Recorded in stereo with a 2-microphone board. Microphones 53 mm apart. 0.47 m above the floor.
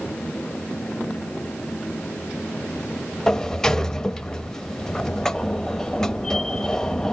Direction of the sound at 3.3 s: 10° left (ahead or behind).